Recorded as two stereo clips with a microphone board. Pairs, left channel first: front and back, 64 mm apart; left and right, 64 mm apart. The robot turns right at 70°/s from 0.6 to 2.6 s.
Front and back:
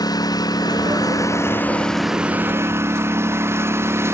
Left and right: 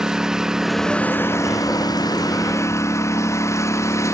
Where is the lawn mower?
10° right; by 4.1 s 130° left.